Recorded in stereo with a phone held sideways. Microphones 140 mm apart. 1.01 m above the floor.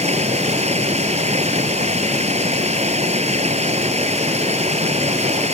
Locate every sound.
0.0 s running water: 50° right (ahead or behind)